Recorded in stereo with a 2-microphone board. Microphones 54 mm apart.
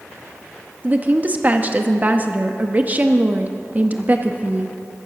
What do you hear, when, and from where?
0.8 s a woman speaking: 30° right (ahead or behind), 0.8 m